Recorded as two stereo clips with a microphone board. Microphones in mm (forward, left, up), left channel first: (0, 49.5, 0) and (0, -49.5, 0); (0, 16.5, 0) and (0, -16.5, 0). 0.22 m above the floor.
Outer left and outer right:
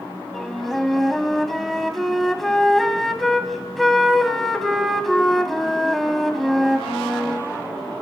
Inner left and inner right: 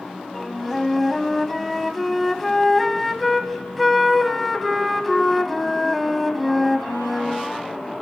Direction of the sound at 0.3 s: Centre (ahead or behind).